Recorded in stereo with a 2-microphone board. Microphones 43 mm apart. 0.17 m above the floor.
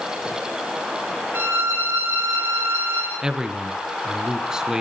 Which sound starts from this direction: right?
A violin, at 1.3 s.